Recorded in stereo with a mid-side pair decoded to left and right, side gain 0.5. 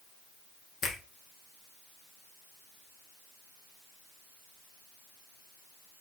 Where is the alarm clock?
I don't hear an alarm clock.